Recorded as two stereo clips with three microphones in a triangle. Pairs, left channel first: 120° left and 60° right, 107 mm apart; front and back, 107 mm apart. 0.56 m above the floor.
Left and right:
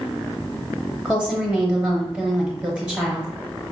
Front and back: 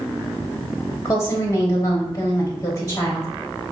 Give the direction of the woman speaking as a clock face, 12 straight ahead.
12 o'clock.